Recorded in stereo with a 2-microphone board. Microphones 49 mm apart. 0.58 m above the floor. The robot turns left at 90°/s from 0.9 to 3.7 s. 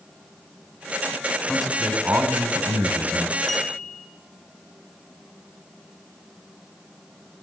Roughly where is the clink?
Centre.